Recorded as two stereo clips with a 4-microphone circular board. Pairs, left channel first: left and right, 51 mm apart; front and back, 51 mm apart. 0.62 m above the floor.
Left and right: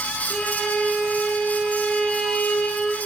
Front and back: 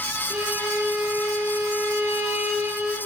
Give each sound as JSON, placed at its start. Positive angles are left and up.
{"t": 0.3, "sound": "a violin", "azimuth_deg": 165, "distance_m": 0.6}